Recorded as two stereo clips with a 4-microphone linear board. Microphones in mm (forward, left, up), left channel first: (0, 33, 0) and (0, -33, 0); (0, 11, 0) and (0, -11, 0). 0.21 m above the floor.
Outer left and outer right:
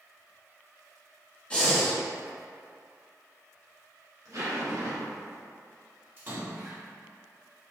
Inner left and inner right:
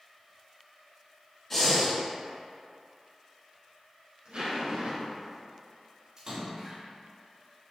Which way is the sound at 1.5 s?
20° left (ahead or behind).